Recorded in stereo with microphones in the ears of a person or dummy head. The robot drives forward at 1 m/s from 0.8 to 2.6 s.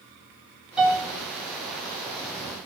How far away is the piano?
About 3.5 m.